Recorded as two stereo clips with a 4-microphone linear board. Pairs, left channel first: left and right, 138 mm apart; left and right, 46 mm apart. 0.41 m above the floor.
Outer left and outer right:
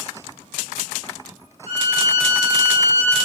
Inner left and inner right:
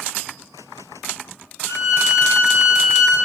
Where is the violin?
80° left, 4 m.